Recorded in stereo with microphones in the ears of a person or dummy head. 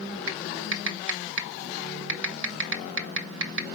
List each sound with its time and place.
0.3 s typing on a keyboard: 70° right (ahead or behind), 1.3 m